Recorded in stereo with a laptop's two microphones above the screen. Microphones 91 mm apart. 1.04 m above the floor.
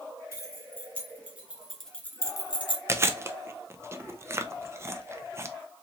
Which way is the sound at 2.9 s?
30° right (ahead or behind).